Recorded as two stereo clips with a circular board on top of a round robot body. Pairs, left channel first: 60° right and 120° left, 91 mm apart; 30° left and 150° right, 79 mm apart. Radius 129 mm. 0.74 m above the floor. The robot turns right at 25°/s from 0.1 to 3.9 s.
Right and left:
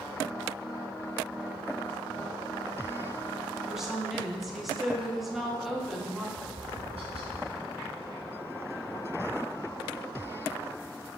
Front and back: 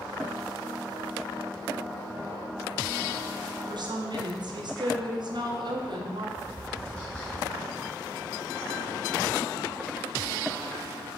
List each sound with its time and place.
3.7 s a woman speaking: 155° right, 1.1 m; by 6.3 s 150° right, 1.1 m
6.4 s tapping: 110° left, 1.5 m